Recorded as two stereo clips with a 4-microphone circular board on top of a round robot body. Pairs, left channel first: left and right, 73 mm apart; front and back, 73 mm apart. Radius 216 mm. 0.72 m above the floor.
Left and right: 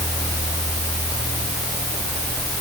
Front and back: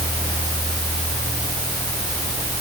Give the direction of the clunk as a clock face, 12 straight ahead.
No clunk in this recording.